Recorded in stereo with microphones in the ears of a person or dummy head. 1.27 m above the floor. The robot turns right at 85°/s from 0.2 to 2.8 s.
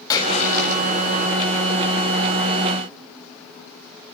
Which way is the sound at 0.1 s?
20° left.